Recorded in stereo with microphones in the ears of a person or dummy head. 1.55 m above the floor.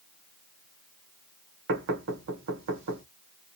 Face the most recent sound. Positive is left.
turn(degrees=-50)  # may be behind; listen again after turning